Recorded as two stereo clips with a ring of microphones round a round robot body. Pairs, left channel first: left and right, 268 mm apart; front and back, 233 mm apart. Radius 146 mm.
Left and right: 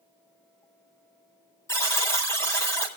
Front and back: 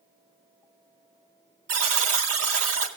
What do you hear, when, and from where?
1.7 s a buzzer: 170° left, 2 m